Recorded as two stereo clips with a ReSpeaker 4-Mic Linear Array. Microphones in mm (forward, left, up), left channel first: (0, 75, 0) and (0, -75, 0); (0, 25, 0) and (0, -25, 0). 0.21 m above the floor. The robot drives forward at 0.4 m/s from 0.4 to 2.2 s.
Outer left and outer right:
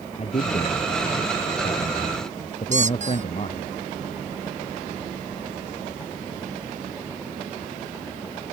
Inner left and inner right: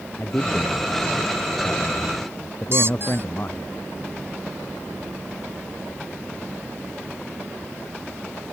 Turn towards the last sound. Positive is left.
turn(degrees=-55)  # may be behind; listen again after turning